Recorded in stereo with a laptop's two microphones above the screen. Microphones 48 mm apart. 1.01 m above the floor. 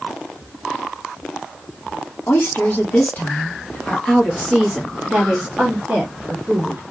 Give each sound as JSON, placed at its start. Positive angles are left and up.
{"t": 2.3, "sound": "a woman speaking", "side_deg": 55, "distance_m": 1.5}